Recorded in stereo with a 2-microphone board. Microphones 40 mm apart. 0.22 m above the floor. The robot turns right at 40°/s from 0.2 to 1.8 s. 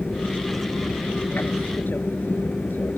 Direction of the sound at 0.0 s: 55° left.